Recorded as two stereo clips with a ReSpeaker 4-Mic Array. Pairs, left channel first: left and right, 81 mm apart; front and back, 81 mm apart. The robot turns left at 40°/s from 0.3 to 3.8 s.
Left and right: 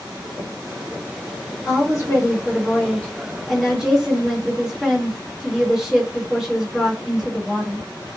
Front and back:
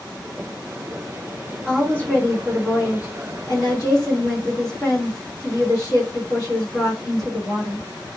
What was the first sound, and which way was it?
A woman speaking, 80° left.